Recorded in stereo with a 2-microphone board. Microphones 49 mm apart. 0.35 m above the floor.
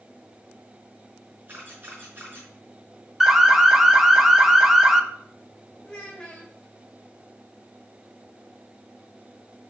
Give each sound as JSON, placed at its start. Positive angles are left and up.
{"t": 1.5, "sound": "a camera shutter", "side_deg": -45, "distance_m": 4.5}
{"t": 3.2, "sound": "an alarm", "side_deg": -5, "distance_m": 0.8}
{"t": 5.8, "sound": "a child speaking", "side_deg": 15, "distance_m": 0.9}